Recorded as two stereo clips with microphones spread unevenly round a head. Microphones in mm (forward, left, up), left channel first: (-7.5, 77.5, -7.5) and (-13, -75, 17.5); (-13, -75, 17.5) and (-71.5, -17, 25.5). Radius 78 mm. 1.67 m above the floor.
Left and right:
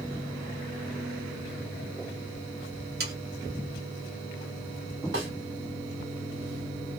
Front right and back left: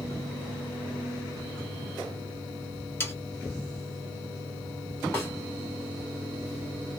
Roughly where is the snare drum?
Right.